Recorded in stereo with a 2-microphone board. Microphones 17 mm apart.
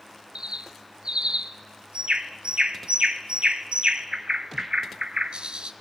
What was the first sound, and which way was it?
A bird, 75° right (ahead or behind).